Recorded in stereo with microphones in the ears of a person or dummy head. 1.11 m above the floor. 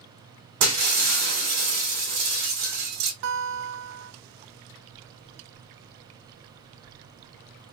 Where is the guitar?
65° right (ahead or behind), 0.7 m.